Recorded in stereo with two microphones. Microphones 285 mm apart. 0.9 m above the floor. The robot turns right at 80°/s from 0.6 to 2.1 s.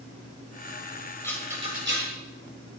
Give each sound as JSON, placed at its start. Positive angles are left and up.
{"t": 1.2, "sound": "a rattle", "side_deg": 10, "distance_m": 1.7}